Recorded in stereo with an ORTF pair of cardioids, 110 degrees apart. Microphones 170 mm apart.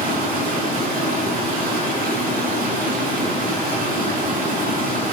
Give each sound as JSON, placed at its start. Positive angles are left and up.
{"t": 0.0, "sound": "running water", "azimuth_deg": -65, "distance_m": 9.0}